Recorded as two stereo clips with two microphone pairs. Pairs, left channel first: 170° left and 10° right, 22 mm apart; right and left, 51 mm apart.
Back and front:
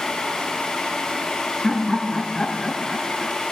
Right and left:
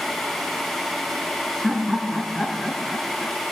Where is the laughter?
165° left, 1.6 m; by 3.4 s 90° right, 1.7 m.